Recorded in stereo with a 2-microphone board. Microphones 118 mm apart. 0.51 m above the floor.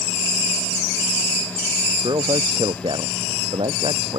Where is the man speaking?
40° right (ahead or behind); by 4.2 s 50° right (ahead or behind).